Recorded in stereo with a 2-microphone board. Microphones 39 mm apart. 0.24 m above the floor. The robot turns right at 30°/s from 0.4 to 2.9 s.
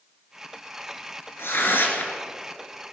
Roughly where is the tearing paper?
Left.